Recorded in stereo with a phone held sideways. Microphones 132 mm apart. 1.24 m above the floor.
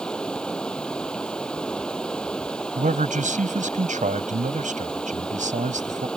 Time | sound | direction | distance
0.0 | running water | 5° left (ahead or behind) | ?
2.8 | a man speaking | 90° right | ?